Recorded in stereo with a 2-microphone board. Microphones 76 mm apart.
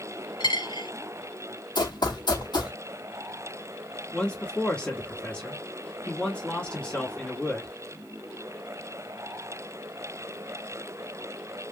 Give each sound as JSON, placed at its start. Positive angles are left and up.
{"t": 0.4, "sound": "a dropped coin", "side_deg": 80, "distance_m": 1.8}
{"t": 1.8, "sound": "running footsteps", "side_deg": 70, "distance_m": 1.4}
{"t": 4.1, "sound": "a man speaking", "side_deg": 15, "distance_m": 1.2}